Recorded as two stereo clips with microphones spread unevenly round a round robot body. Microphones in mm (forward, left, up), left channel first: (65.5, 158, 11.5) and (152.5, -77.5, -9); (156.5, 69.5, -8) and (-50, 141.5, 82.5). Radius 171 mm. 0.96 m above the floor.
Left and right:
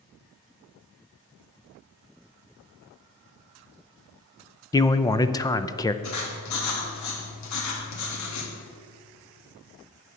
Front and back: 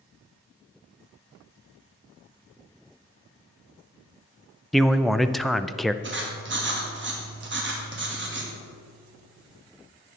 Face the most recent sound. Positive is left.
turn(degrees=115)